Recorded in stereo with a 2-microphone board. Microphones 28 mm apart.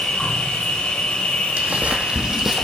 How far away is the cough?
I don't hear a cough.